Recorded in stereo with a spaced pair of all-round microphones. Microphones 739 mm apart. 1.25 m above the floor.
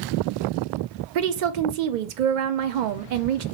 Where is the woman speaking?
75° right (ahead or behind), 0.6 m.